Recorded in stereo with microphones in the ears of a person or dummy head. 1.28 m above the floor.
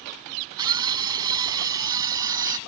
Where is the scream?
20° right (ahead or behind); by 2.6 s 15° right (ahead or behind).